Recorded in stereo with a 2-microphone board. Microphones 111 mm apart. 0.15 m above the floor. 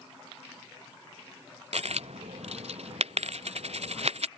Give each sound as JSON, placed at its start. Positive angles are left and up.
{"t": 1.7, "sound": "a dropped coin", "side_deg": -65}